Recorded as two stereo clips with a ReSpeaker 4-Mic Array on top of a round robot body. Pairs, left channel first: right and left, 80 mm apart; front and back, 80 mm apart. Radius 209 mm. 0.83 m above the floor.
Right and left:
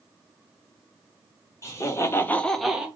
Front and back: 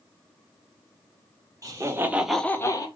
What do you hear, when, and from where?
1.6 s laughter: 135° right, 1.5 m; by 2.9 s 15° left, 1.2 m